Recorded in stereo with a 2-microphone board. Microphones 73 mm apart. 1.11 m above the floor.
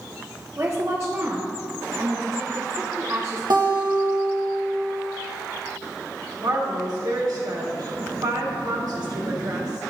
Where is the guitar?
70° right (ahead or behind), 1.4 m.